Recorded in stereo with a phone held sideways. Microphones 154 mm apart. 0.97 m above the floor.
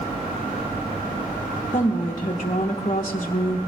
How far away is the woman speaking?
About 1.0 m.